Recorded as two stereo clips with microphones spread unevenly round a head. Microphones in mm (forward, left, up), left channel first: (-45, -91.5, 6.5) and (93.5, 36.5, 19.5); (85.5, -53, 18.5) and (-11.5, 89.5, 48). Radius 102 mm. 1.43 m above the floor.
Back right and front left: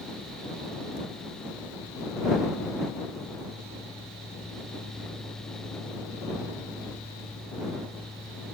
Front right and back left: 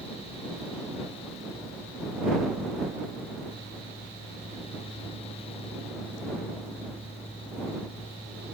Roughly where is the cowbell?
I don't hear a cowbell.